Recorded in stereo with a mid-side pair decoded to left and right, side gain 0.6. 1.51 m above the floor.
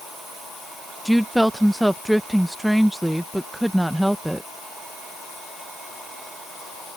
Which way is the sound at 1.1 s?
Straight ahead.